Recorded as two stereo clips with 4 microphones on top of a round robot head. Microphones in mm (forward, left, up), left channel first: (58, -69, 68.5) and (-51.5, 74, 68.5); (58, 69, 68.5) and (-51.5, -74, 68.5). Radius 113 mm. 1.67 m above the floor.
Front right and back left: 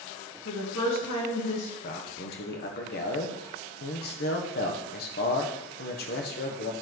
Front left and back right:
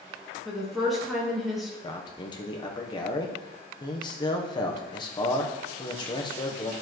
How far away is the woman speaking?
About 2.5 m.